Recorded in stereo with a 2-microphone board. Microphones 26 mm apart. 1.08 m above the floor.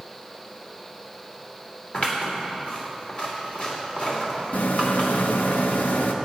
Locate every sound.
1.9 s scissors: 50° left (ahead or behind), 2.5 m
4.5 s a rattle: 85° left, 0.9 m